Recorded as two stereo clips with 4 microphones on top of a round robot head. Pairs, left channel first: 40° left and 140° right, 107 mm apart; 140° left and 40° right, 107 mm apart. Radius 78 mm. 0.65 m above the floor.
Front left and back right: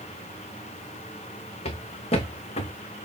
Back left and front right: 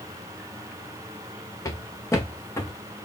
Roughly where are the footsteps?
Left.